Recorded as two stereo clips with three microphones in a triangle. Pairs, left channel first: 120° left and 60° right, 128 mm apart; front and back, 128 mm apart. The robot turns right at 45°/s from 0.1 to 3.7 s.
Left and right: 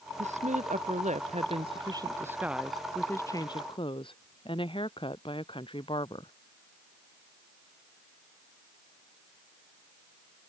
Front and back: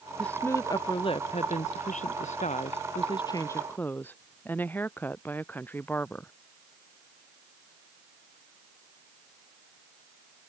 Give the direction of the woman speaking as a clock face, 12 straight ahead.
3 o'clock.